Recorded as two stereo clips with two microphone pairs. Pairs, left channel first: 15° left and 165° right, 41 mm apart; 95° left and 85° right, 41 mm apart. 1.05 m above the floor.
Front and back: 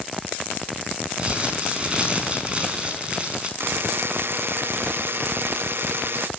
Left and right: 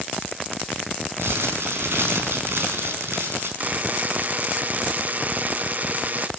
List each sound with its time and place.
1.2 s crumpling: 105° right, 4.5 m
3.6 s a buzzer: 135° right, 0.5 m